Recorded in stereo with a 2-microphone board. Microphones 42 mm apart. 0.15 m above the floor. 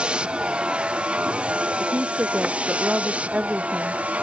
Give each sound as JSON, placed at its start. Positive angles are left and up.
{"t": 0.0, "sound": "a vehicle", "side_deg": -25}
{"t": 1.8, "sound": "a woman speaking", "side_deg": -35}